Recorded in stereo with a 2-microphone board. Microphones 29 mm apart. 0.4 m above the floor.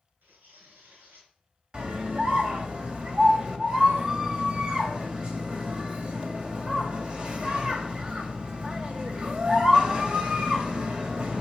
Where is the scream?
30° right (ahead or behind), 2 m.